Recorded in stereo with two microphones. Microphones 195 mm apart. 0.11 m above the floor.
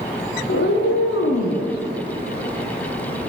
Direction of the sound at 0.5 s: 80° left.